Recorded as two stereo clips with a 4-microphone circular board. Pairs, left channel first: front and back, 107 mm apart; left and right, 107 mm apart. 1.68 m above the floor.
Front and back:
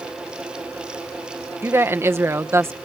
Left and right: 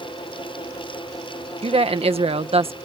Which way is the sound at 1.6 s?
115° right.